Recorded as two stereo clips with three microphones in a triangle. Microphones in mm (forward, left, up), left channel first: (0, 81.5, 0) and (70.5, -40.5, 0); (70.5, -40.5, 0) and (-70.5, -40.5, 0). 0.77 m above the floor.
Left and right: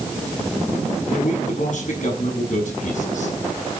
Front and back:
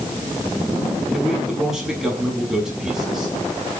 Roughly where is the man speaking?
Left.